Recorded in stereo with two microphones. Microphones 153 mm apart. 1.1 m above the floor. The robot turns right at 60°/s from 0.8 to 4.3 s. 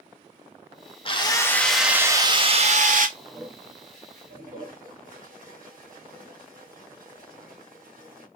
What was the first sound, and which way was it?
A drill, 140° left.